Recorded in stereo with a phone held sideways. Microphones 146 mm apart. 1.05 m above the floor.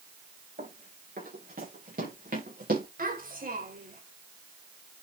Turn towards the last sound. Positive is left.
turn(degrees=-70)  # may be behind; listen again after turning